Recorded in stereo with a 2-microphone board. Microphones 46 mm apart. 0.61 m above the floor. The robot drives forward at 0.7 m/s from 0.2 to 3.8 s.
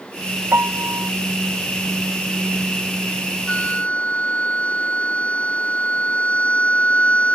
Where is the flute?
30° left (ahead or behind); by 7.3 s 25° left (ahead or behind).